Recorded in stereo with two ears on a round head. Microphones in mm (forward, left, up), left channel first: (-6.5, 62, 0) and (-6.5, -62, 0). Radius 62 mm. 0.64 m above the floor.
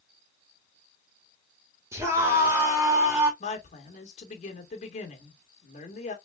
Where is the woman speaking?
55° left (ahead or behind), 2 m.